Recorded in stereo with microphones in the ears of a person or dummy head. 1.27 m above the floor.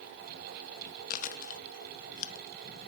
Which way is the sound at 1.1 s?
45° left (ahead or behind).